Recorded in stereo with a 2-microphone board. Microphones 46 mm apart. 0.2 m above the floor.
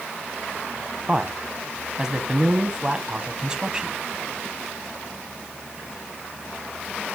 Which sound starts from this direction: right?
A man speaking, at 1.1 s.